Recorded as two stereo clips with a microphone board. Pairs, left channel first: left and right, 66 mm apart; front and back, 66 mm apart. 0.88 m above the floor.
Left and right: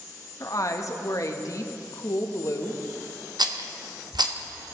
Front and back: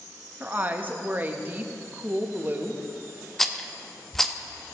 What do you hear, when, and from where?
0.4 s a woman speaking: 120° left, 0.7 m
3.4 s a rattle: 85° right, 0.5 m